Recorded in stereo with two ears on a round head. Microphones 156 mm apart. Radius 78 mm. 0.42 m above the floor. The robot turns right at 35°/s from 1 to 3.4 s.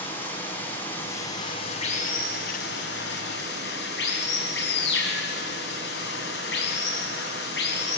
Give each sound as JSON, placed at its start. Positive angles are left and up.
{"t": 0.0, "sound": "running water", "azimuth_deg": 15, "distance_m": 3.5}